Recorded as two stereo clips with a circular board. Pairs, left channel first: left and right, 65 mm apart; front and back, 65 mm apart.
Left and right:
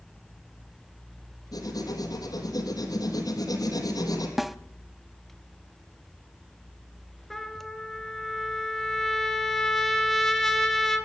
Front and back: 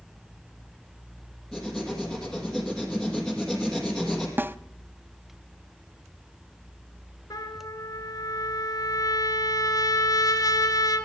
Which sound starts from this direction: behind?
A snare drum, at 4.4 s.